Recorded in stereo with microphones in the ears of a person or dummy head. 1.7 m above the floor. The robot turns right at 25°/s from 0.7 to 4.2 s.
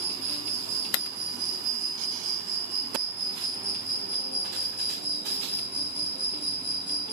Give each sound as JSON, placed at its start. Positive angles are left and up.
{"t": 0.0, "sound": "an insect", "azimuth_deg": -70, "distance_m": 2.0}